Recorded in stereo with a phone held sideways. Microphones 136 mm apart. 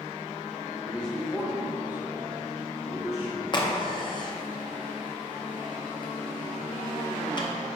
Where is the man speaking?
15° left (ahead or behind), 1.3 m; by 3.4 s 20° right (ahead or behind), 3.5 m.